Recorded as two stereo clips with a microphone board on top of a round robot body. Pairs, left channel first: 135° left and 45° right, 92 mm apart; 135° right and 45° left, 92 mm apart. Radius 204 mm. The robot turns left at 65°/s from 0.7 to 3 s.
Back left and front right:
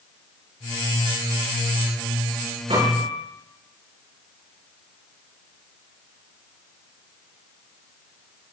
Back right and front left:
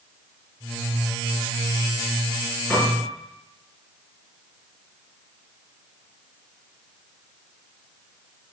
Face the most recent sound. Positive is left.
turn(degrees=-70)